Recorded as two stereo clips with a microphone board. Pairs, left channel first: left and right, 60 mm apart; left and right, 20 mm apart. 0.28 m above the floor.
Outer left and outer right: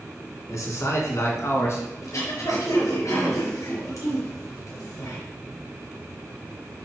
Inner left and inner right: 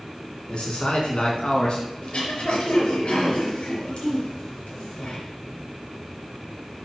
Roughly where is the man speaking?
Left.